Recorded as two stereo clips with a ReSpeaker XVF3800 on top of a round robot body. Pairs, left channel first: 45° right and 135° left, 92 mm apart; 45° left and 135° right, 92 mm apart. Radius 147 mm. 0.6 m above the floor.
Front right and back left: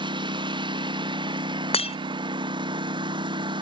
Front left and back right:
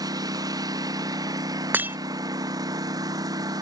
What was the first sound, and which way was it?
A lawn mower, 175° left.